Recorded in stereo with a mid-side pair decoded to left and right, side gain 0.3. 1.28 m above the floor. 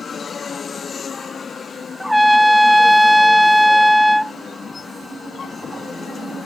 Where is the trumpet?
10° right.